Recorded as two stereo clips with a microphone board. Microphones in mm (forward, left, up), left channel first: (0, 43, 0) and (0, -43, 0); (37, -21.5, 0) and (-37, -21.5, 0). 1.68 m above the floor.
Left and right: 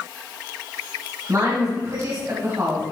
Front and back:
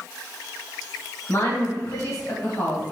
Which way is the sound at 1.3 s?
40° right.